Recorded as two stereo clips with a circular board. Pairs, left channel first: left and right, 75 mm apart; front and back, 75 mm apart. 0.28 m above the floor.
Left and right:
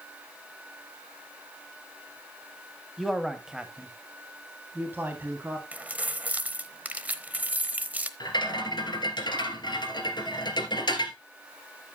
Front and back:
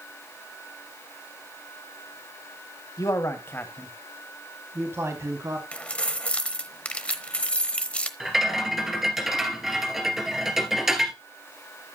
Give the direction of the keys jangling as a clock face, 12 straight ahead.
2 o'clock.